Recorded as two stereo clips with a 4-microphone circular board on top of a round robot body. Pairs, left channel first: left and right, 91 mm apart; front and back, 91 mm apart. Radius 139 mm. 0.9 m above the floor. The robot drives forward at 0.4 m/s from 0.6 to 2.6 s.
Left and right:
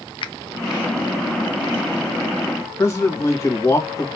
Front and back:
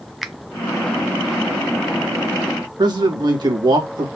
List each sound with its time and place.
0.2 s a finger snap: 90° left, 0.7 m
2.8 s a man speaking: 145° left, 1.8 m